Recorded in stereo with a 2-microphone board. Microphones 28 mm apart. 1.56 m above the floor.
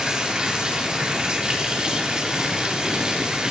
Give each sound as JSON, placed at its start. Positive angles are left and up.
{"t": 0.0, "sound": "running water", "side_deg": -25, "distance_m": 4.0}